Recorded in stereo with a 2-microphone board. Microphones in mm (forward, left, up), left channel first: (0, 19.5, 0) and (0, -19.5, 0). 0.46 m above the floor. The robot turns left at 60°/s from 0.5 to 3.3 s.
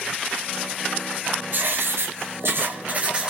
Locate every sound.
1.5 s writing: 55° right, 2 m; by 3.3 s 160° right, 2 m